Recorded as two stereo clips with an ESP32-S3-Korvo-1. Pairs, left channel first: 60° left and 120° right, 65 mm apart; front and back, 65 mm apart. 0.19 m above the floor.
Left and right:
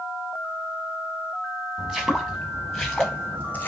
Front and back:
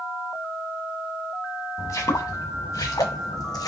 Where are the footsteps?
40° right, 1.4 m; by 3.7 s straight ahead, 0.6 m.